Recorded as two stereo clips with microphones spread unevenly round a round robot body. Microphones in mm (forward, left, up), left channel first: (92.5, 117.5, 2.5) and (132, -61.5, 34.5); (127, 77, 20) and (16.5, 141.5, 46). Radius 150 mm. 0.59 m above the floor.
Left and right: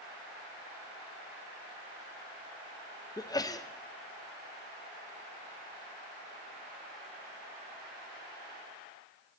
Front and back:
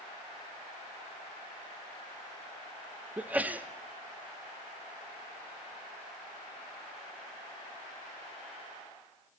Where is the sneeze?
60° left, 0.7 m.